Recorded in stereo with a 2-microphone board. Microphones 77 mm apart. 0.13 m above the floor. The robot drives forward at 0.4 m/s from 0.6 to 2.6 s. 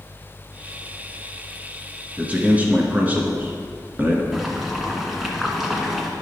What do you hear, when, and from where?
2.2 s a man speaking: 20° right (ahead or behind), 1.7 m
4.3 s boiling: centre (ahead or behind), 1.6 m